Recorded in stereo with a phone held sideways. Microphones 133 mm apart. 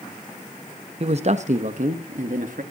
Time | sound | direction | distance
1.0 | a man speaking | 45° right (ahead or behind) | 0.8 m